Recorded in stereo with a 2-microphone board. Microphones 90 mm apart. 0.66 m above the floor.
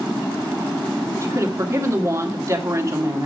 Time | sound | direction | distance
1.2 | a woman speaking | 30° right (ahead or behind) | 1.7 m